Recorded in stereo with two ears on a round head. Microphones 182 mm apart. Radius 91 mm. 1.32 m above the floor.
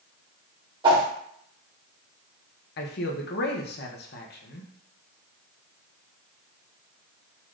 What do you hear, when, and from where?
0.8 s a whoosh: 25° right (ahead or behind), 1.1 m
2.8 s a man speaking: 50° left (ahead or behind), 0.7 m